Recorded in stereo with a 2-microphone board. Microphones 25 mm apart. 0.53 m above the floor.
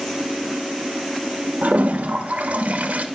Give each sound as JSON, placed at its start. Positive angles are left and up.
{"t": 1.6, "sound": "a toilet flushing", "side_deg": -80, "distance_m": 0.7}